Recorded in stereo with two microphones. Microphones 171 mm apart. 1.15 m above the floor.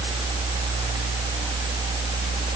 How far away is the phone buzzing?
I don't hear a phone buzzing.